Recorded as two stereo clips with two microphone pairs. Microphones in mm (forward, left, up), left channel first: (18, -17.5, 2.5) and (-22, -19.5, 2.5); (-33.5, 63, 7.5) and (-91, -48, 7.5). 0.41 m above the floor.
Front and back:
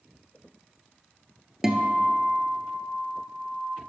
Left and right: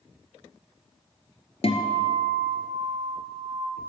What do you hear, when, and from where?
1.6 s a guitar: 105° left, 1.1 m